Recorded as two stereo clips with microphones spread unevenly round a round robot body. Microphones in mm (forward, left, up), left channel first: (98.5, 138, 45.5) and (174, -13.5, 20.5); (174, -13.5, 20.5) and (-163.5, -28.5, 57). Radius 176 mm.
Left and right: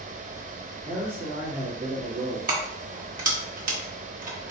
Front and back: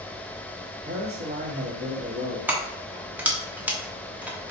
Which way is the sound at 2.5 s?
90° right.